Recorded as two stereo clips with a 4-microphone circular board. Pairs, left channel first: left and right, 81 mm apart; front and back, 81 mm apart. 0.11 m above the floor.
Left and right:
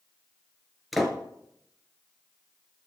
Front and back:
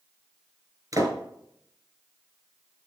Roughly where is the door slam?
Behind.